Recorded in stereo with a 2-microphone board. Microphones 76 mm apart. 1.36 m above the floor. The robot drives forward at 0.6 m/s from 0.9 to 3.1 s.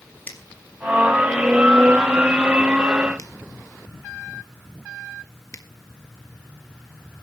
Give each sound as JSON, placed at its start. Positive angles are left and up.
{"t": 0.3, "sound": "a finger snap", "side_deg": 25, "distance_m": 3.0}